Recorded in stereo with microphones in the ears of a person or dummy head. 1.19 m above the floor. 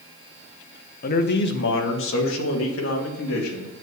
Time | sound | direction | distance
1.0 | a man speaking | 45° left (ahead or behind) | 1.1 m